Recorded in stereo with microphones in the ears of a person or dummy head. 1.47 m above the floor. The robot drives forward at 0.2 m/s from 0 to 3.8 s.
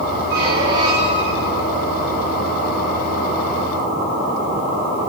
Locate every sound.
0.3 s a squeak: 25° right (ahead or behind), 0.8 m; by 1.7 s 30° right (ahead or behind), 0.8 m